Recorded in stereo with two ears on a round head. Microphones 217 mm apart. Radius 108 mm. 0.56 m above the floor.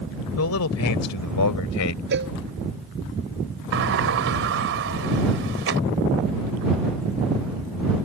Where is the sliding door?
55° right (ahead or behind).